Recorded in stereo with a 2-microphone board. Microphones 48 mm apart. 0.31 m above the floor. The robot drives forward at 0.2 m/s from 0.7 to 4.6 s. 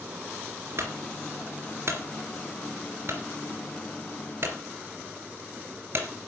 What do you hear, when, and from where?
0.8 s a clunk: 55° right (ahead or behind), 2.5 m; by 6.1 s 45° right (ahead or behind), 3 m